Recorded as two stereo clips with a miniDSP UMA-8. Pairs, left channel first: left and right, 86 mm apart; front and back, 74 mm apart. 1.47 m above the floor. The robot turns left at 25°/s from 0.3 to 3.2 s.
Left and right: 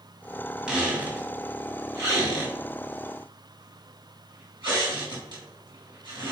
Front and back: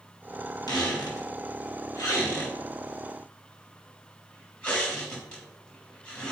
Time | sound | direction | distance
0.7 | a squeak | 10° right | 3.5 m